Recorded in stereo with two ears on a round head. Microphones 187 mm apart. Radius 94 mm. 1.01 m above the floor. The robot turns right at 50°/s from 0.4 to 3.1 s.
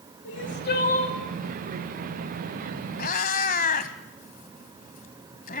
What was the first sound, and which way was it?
Crying, 115° left.